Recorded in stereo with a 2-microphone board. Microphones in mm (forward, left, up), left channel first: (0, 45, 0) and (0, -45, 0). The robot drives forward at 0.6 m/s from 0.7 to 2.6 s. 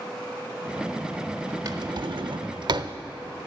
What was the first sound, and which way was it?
A drawer, 45° right (ahead or behind).